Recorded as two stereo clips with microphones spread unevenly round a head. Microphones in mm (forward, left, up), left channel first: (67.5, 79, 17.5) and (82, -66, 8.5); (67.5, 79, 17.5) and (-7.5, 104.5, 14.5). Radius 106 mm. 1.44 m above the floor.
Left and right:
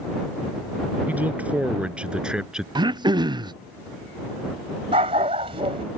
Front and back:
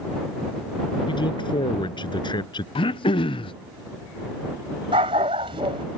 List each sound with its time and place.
1.1 s a man speaking: 5° right; by 2.6 s straight ahead
2.8 s throat clearing: 20° right
4.9 s a dog barking: 150° right